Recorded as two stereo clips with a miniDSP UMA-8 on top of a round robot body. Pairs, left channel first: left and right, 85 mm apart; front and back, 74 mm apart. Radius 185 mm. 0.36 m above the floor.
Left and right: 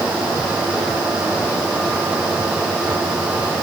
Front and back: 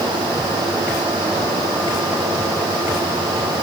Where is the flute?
I don't hear a flute.